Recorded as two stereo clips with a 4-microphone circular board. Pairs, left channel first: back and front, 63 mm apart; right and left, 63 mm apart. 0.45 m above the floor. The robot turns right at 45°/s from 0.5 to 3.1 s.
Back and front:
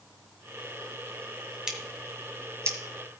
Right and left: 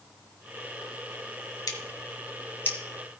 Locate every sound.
1.7 s scissors: 80° right, 2.0 m; by 2.8 s 30° right, 2.0 m